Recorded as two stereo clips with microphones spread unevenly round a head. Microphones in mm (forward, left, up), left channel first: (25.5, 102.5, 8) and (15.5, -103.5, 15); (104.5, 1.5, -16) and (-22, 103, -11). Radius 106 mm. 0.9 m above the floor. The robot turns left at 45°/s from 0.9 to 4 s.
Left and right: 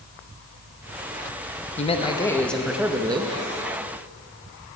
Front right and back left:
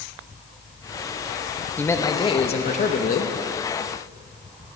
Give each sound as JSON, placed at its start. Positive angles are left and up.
{"t": 1.8, "sound": "a man speaking", "azimuth_deg": 35, "distance_m": 0.8}